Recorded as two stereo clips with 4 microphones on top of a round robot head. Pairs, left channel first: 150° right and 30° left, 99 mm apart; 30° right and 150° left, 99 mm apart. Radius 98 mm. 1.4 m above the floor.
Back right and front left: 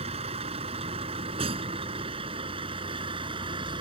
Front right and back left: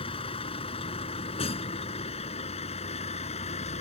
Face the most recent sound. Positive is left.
turn(degrees=-10)